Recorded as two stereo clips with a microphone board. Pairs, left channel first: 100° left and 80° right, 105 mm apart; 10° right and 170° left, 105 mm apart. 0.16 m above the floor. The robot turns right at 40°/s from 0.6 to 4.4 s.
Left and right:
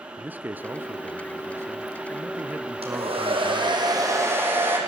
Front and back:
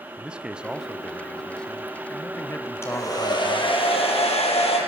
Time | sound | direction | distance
0.2 | a man speaking | 125° right | 1.0 m
2.8 | a hair dryer | 75° right | 6 m